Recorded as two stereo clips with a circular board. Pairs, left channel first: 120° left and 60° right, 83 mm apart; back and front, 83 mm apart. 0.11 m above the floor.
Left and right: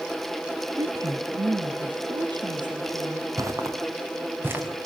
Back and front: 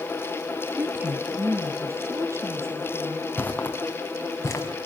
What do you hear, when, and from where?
0.8 s a woman speaking: 60° right, 1.6 m; by 3.3 s 50° right, 4.5 m
3.4 s footsteps: 110° right, 4 m; by 4.7 s 125° right, 5 m